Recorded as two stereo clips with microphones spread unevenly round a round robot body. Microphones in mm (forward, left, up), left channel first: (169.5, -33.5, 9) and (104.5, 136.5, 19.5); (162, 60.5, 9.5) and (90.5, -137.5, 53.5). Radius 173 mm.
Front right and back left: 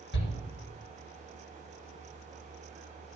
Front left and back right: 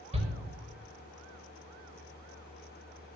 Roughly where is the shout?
Ahead right.